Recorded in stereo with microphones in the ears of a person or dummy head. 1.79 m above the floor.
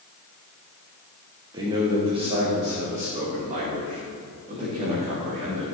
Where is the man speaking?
25° right (ahead or behind), 1.3 m; by 5.7 s 45° right (ahead or behind), 4 m.